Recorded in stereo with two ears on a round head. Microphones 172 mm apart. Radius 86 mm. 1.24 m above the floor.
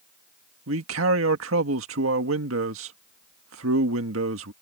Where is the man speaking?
80° right.